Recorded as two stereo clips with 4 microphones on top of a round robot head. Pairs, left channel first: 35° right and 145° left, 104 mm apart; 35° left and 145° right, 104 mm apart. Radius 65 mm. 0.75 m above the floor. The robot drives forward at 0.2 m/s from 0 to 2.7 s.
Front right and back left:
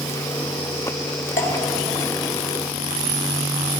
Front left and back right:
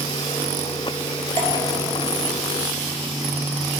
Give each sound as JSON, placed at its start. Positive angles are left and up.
{"t": 1.4, "sound": "dripping", "azimuth_deg": -105, "distance_m": 2.5}